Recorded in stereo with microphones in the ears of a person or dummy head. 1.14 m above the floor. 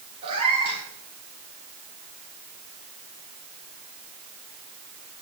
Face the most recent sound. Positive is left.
turn(degrees=-30)  # may be behind; listen again after turning